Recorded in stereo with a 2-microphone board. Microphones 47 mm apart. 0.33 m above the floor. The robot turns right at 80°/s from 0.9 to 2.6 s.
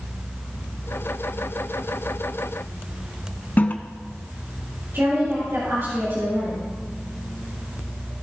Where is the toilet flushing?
40° left (ahead or behind), 0.6 m.